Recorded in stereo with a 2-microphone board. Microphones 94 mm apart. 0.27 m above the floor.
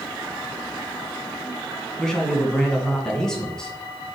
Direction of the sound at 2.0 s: 5° left (ahead or behind).